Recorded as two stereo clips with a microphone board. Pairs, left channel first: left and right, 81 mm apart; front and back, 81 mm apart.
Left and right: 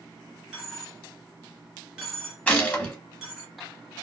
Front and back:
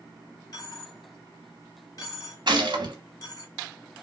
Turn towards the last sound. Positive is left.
turn(degrees=160)